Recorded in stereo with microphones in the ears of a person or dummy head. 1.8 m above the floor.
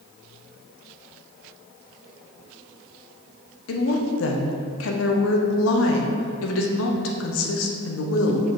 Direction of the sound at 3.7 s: 75° left (ahead or behind).